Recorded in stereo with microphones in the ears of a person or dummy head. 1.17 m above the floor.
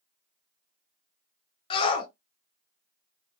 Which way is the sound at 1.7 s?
35° left (ahead or behind).